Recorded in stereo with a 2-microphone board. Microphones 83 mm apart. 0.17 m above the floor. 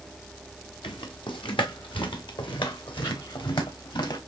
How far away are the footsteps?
About 2 m.